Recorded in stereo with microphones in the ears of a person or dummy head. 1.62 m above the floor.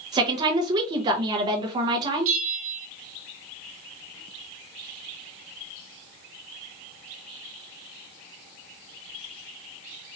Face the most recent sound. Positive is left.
turn(degrees=-40)  # may be behind; listen again after turning